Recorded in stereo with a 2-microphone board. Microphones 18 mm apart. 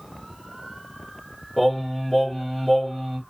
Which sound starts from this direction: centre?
Singing, at 1.6 s.